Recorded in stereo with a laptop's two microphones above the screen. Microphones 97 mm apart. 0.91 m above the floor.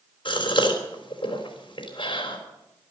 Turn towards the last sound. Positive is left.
turn(degrees=55)  # may be behind; listen again after turning